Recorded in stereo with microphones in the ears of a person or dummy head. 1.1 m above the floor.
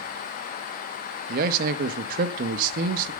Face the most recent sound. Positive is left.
turn(degrees=-45)  # may be behind; listen again after turning